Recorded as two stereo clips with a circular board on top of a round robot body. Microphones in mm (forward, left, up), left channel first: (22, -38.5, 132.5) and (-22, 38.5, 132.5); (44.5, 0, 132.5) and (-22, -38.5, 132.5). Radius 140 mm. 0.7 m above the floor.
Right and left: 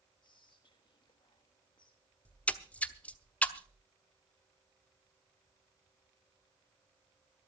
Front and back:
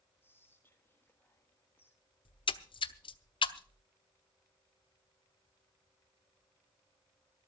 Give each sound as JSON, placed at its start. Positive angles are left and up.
{"t": 0.2, "sound": "whispering", "azimuth_deg": -30, "distance_m": 1.8}
{"t": 2.2, "sound": "a splash", "azimuth_deg": 15, "distance_m": 0.8}